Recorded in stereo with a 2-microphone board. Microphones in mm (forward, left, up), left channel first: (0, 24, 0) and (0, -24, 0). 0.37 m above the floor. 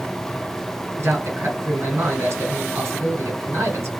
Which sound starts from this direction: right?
A man speaking, at 1.0 s.